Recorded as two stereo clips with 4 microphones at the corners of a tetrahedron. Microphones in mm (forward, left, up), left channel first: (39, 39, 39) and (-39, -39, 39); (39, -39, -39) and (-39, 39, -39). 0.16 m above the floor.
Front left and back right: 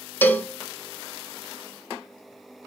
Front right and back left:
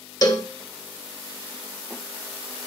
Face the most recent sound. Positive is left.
turn(degrees=-15)